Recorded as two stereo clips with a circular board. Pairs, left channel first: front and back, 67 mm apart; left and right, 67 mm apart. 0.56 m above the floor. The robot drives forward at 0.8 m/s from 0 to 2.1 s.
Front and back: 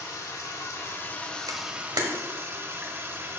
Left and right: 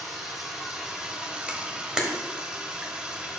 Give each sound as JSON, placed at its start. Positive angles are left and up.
{"t": 0.0, "sound": "running water", "azimuth_deg": -5, "distance_m": 1.4}
{"t": 1.5, "sound": "a camera shutter", "azimuth_deg": -165, "distance_m": 0.8}